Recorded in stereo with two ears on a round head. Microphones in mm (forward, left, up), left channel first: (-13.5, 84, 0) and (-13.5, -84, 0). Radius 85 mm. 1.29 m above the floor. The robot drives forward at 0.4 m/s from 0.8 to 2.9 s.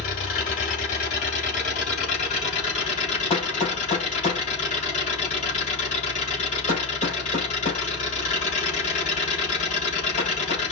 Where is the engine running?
50° left (ahead or behind), 4 m; by 10.7 s 40° left (ahead or behind), 4.5 m.